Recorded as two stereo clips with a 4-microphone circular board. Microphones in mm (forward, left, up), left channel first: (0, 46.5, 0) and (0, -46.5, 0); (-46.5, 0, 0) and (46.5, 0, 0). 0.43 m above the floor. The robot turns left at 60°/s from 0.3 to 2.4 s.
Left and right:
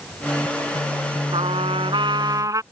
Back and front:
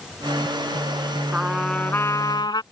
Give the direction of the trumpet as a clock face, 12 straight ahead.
3 o'clock.